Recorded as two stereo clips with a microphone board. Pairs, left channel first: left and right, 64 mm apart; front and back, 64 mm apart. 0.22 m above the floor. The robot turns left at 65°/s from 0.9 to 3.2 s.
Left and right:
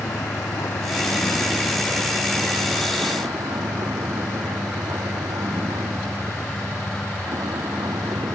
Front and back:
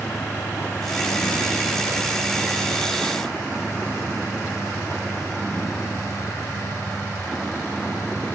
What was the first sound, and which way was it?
A vehicle, 60° left.